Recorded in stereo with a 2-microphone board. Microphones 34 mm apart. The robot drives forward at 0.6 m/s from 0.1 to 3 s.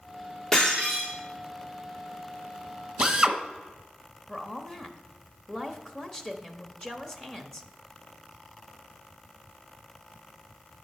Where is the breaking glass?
15° left (ahead or behind), 4 m.